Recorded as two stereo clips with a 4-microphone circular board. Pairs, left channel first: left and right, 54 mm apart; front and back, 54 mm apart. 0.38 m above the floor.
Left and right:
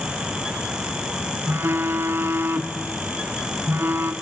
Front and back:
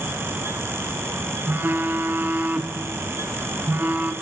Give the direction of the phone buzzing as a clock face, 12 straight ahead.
5 o'clock.